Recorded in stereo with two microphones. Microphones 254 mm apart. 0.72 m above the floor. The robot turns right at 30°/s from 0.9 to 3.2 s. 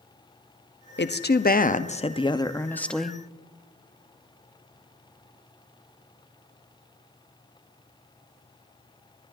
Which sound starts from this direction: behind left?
A woman speaking, at 1.0 s.